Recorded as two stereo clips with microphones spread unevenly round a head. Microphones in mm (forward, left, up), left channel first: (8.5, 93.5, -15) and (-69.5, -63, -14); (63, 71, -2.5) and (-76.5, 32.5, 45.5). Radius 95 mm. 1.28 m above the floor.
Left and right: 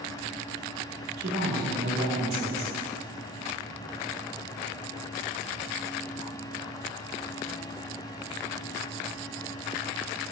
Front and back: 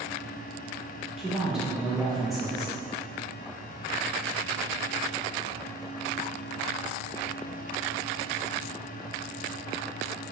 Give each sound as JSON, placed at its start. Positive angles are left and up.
{"t": 1.2, "sound": "a woman speaking", "azimuth_deg": -75, "distance_m": 1.8}